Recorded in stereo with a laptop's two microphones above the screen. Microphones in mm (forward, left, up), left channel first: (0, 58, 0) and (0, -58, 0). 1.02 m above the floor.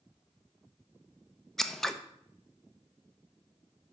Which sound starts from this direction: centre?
Scissors, at 1.6 s.